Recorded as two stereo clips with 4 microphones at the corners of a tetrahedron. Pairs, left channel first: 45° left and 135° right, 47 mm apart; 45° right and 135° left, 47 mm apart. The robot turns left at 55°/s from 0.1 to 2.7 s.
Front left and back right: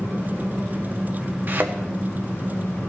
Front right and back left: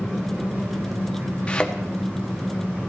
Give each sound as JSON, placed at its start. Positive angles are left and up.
{"t": 0.0, "sound": "an engine running", "azimuth_deg": -140, "distance_m": 5.5}
{"t": 1.5, "sound": "a thud", "azimuth_deg": -105, "distance_m": 1.3}